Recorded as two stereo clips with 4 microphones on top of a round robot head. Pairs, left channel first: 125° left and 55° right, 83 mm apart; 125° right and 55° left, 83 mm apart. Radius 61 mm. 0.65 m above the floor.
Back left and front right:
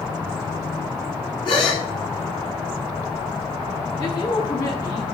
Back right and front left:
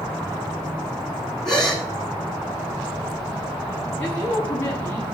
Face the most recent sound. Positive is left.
turn(degrees=170)